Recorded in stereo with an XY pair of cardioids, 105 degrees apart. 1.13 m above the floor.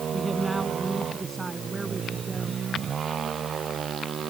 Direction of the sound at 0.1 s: 15° right.